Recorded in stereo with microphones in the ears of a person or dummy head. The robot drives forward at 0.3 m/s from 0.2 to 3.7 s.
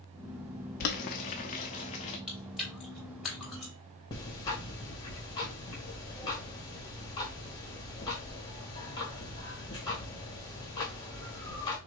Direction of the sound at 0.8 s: 55° left (ahead or behind).